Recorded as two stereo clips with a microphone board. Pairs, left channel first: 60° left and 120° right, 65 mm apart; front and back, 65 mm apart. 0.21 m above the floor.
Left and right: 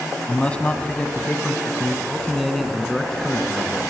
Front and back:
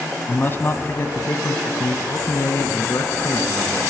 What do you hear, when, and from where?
0.3 s a man speaking: 10° left, 1.2 m; by 3.8 s 35° right, 2.5 m